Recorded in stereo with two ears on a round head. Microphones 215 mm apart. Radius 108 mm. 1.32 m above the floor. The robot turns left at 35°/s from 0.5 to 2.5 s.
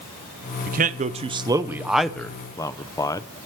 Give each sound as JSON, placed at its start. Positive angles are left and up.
{"t": 0.7, "sound": "a man speaking", "side_deg": -40, "distance_m": 0.7}